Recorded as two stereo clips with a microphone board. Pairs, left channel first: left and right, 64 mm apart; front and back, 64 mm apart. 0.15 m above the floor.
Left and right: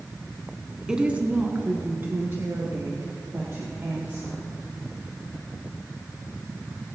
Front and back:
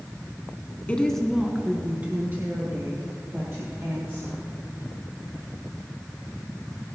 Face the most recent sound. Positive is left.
turn(degrees=-140)